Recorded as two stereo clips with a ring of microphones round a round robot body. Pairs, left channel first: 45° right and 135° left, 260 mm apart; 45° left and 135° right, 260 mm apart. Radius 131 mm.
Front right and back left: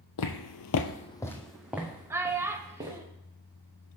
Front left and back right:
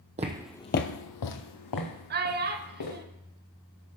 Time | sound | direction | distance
0.2 | footsteps | 70° right | 0.9 m
2.1 | a child speaking | 150° right | 0.8 m